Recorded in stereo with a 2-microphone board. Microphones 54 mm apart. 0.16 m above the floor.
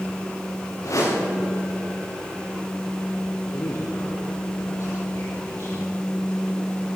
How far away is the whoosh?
About 8.5 m.